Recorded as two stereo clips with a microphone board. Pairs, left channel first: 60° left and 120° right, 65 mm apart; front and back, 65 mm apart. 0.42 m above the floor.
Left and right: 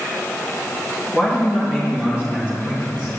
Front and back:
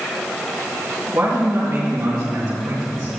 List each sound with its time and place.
1.1 s a man speaking: 175° left, 3 m; by 3.1 s 165° left, 4 m